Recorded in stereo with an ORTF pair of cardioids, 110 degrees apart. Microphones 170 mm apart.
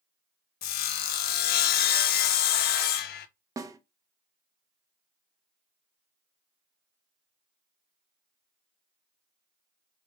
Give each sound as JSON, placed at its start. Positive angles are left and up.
{"t": 0.6, "sound": "sawing", "azimuth_deg": 65, "distance_m": 0.5}
{"t": 3.6, "sound": "a snare drum", "azimuth_deg": -20, "distance_m": 0.7}